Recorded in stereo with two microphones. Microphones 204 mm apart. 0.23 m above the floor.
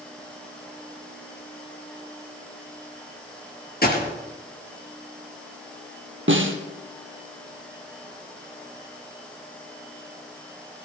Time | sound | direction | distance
3.8 | a gunshot | 50° left (ahead or behind) | 3.5 m
6.3 | a snare drum | 70° right (ahead or behind) | 2 m